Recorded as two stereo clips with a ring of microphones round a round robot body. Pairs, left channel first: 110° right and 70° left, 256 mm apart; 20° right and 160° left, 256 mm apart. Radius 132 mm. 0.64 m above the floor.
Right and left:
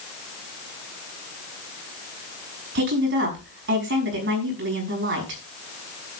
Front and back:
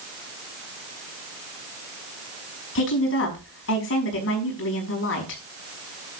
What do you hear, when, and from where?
2.8 s a woman speaking: 20° left, 5.5 m